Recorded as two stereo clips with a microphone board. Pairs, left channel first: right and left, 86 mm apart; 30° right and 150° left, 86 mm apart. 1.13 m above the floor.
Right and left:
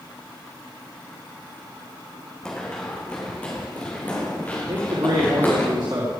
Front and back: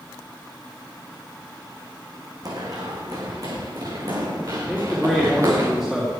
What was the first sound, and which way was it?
Running footsteps, 170° right.